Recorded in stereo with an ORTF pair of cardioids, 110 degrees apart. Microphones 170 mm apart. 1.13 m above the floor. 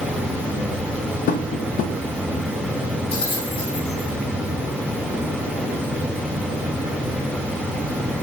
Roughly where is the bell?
Ahead left.